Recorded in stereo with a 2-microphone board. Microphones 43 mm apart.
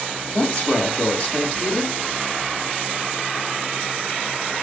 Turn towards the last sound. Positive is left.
turn(degrees=35)  # may be behind; listen again after turning